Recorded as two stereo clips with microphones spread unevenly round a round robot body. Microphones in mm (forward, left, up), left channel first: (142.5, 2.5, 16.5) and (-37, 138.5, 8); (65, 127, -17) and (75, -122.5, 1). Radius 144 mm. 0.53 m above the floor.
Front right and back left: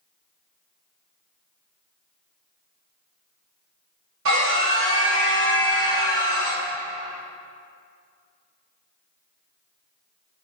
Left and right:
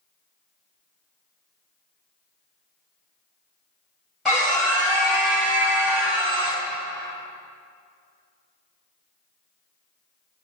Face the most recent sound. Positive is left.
turn(degrees=-175)